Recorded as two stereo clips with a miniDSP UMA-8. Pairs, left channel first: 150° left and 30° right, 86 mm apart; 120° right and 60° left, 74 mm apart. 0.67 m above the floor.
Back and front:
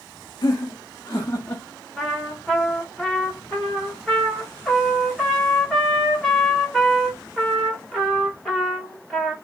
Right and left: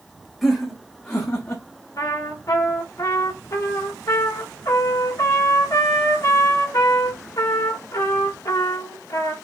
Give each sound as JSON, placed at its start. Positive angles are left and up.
{"t": 0.4, "sound": "laughter", "azimuth_deg": 155, "distance_m": 1.0}
{"t": 2.0, "sound": "a trumpet", "azimuth_deg": -125, "distance_m": 1.7}